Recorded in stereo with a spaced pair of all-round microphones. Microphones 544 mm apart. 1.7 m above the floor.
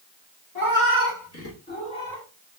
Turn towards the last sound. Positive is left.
turn(degrees=0)  # may be behind; listen again after turning